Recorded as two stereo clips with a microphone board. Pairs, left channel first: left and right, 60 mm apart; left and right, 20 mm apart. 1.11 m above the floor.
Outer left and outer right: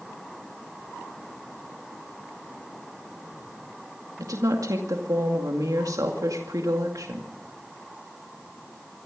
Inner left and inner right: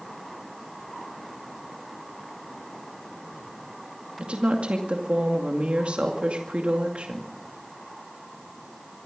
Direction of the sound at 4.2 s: 75° right (ahead or behind).